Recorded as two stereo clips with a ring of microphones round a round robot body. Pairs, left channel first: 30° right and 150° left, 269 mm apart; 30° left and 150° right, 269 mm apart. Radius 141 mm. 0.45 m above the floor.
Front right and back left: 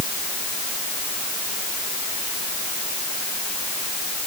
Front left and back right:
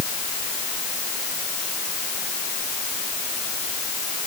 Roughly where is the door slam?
I don't hear a door slam.